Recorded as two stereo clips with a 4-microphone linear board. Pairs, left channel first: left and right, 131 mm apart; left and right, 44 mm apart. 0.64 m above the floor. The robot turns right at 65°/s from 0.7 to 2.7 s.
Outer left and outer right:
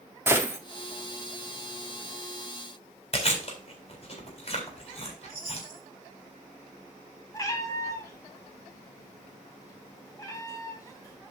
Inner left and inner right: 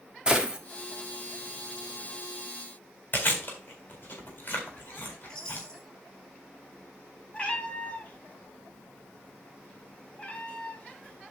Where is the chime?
15° left (ahead or behind), 5.5 m.